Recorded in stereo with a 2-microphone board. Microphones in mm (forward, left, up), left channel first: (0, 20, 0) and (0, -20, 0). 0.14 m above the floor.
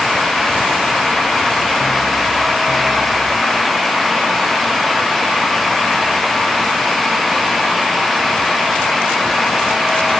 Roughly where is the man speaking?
I don't hear a man speaking.